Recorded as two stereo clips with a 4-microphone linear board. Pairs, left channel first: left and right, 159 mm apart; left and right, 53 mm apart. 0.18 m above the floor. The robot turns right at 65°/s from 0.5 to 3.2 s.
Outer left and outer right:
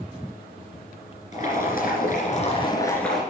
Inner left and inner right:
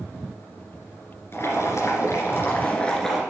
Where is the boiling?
60° left, 3 m; by 3.2 s straight behind, 3 m.